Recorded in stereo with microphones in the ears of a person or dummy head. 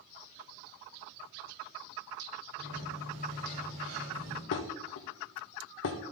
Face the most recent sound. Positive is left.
turn(degrees=65)  # may be behind; listen again after turning